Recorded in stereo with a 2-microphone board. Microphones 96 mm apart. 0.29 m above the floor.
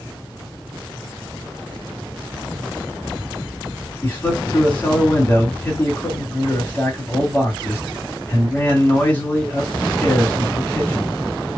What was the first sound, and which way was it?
A man speaking, 20° left (ahead or behind).